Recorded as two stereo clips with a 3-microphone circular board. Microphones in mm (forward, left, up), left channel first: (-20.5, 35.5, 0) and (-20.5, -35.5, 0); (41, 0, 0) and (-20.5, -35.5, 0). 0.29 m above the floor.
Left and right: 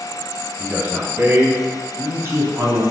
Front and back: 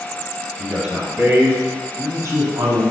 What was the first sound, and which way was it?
A man speaking, 75° right.